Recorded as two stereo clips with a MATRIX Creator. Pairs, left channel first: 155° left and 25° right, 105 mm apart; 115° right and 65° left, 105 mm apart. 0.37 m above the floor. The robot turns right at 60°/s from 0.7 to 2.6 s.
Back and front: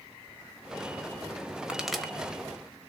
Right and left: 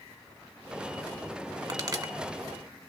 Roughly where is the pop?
Ahead left.